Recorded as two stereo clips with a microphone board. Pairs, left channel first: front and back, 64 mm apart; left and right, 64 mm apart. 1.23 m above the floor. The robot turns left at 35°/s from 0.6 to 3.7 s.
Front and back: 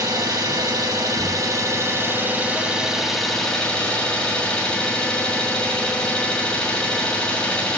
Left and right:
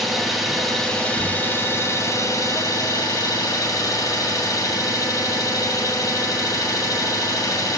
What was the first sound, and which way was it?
An engine running, straight behind.